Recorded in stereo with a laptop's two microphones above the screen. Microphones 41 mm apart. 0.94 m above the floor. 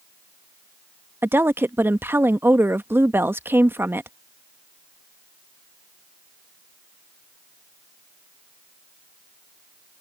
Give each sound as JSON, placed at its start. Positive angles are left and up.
{"t": 1.2, "sound": "a woman speaking", "side_deg": -70}